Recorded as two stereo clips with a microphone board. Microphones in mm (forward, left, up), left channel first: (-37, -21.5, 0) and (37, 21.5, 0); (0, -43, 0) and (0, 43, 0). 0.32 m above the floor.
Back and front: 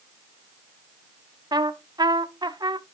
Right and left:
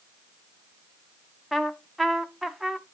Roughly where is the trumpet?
Ahead.